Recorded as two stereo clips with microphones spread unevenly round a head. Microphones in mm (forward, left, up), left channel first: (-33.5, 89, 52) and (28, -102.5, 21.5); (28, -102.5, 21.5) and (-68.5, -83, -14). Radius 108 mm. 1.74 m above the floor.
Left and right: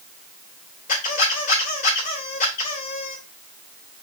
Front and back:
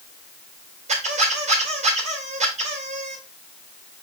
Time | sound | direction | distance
0.9 | a squeak | 160° left | 3.5 m